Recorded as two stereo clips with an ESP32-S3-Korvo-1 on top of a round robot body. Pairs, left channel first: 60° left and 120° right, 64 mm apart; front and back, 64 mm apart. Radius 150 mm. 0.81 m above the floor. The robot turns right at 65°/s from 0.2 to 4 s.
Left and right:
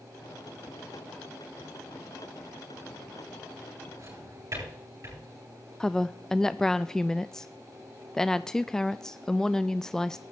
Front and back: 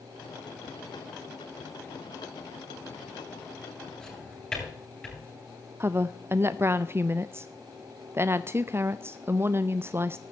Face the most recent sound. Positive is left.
turn(degrees=140)